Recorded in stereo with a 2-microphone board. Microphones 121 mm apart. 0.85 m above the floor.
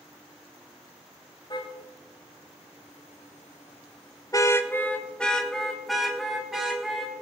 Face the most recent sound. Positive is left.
turn(degrees=-5)  # may be behind; listen again after turning